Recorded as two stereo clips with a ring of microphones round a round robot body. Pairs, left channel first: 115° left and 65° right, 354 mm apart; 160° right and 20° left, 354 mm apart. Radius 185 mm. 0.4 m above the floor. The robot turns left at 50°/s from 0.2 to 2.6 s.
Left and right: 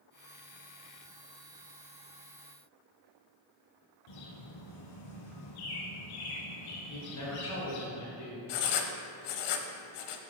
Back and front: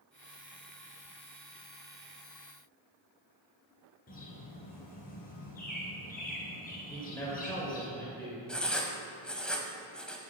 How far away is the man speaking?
About 2 m.